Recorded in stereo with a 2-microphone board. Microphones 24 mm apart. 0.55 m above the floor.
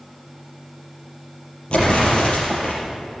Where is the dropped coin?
No dropped coin in this recording.